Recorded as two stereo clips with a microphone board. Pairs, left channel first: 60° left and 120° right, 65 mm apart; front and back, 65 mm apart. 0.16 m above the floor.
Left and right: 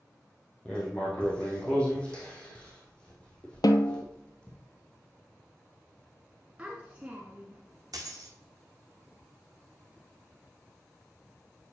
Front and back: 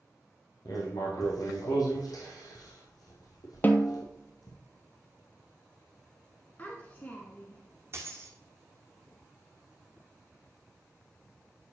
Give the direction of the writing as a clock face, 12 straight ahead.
12 o'clock.